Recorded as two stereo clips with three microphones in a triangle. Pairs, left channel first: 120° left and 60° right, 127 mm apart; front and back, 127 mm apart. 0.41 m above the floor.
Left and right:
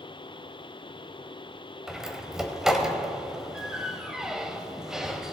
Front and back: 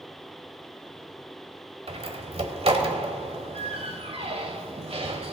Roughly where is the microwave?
I don't hear a microwave.